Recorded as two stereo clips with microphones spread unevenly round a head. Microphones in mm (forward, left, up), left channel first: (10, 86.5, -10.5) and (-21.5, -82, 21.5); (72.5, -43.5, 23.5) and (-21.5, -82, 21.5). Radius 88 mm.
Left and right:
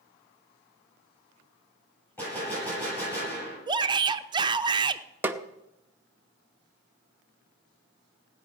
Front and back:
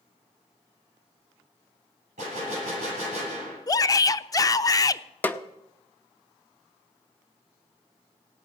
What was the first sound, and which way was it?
A gunshot, 160° left.